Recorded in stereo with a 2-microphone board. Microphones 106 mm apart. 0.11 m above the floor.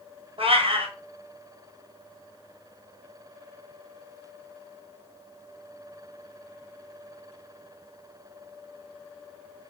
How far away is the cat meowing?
About 1.0 m.